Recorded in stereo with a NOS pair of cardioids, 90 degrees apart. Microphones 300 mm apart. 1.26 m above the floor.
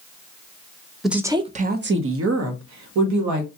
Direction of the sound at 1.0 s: Straight ahead.